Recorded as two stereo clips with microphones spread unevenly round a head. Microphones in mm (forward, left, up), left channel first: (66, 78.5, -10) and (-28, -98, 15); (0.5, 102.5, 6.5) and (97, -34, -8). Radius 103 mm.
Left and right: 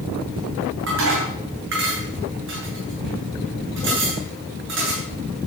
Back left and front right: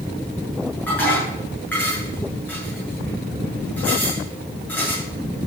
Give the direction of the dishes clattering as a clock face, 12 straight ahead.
5 o'clock.